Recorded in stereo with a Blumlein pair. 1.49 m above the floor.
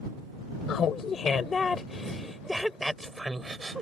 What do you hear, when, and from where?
0.7 s laughter: 30° left; by 3.8 s 10° right